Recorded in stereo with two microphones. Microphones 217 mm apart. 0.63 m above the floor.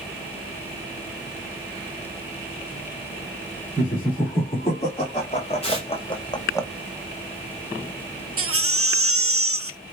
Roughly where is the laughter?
Left.